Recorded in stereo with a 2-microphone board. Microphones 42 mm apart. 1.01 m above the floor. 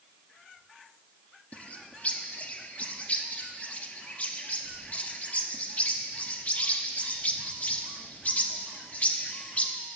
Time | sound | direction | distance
1.5 | a bird | 30° left (ahead or behind) | 0.6 m